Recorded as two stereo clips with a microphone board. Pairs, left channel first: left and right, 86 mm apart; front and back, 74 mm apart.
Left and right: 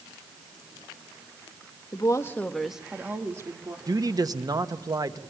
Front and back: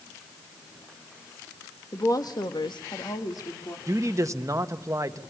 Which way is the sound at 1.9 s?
50° left.